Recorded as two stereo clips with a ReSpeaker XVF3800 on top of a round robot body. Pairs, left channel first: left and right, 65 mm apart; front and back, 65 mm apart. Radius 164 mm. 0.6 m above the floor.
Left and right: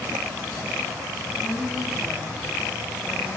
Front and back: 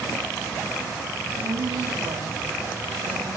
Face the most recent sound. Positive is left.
turn(degrees=-175)